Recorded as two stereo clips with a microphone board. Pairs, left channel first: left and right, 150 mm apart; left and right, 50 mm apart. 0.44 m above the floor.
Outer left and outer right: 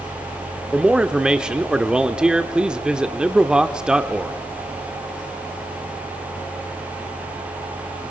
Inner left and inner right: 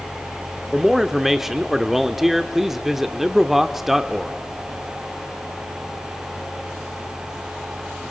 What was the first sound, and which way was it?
A man speaking, 5° right (ahead or behind).